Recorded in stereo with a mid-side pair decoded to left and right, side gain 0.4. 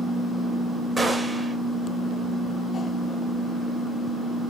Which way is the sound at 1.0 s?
20° right.